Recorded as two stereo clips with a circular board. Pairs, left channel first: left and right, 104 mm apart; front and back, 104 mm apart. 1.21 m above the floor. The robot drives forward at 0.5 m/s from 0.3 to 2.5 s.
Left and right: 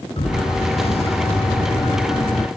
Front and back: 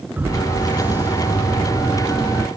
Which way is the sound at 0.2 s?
110° left.